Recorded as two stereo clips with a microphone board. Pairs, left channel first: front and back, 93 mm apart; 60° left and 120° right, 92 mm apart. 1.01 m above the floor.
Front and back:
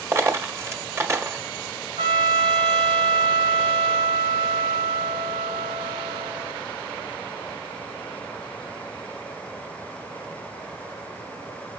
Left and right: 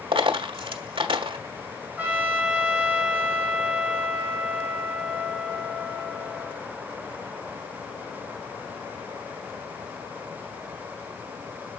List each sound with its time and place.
0.1 s a dropped coin: 120° right, 1.4 m
2.0 s a trumpet: 165° left, 4 m